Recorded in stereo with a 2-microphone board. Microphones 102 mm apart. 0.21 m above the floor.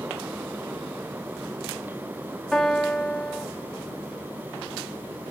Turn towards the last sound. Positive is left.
turn(degrees=5)  # may be behind; listen again after turning